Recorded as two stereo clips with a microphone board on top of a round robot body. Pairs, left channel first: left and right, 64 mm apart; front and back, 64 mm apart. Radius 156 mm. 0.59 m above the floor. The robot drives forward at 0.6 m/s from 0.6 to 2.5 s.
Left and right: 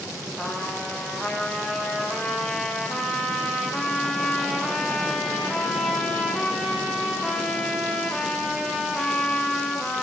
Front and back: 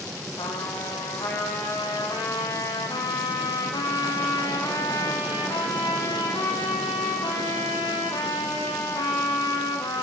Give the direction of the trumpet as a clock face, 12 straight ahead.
12 o'clock.